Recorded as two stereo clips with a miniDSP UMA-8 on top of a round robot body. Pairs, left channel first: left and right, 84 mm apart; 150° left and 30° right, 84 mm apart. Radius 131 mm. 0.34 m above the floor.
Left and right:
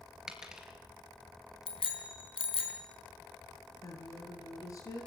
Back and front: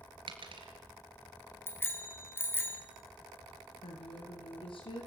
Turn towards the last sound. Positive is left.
turn(degrees=140)